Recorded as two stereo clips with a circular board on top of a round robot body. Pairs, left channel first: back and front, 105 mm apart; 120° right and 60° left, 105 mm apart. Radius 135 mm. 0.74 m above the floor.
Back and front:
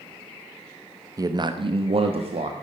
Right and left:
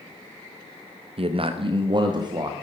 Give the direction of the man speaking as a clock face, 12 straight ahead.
10 o'clock.